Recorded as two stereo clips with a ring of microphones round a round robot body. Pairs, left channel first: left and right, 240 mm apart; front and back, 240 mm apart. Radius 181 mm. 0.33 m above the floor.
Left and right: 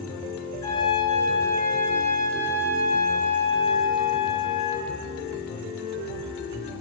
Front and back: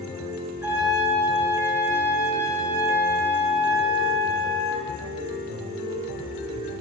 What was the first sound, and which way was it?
A trumpet, 100° left.